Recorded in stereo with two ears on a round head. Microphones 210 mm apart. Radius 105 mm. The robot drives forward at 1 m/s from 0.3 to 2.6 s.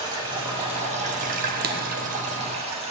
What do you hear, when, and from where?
0.0 s running water: 20° right (ahead or behind), 1.6 m; by 2.9 s 25° right (ahead or behind), 1.3 m
1.6 s writing: 40° right (ahead or behind), 0.8 m; by 1.8 s 50° right (ahead or behind), 0.7 m